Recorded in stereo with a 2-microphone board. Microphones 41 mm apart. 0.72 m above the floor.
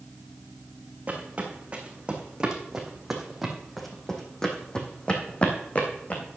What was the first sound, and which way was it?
Footsteps, 35° right (ahead or behind).